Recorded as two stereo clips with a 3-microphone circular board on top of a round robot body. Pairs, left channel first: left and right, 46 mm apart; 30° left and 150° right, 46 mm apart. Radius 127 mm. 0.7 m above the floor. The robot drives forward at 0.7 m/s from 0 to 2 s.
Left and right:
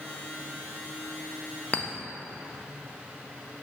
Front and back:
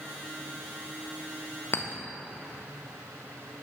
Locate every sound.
1.7 s a clink: 40° left, 0.6 m; by 1.9 s 50° left, 0.6 m